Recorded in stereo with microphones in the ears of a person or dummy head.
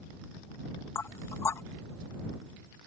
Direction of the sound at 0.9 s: 20° left (ahead or behind).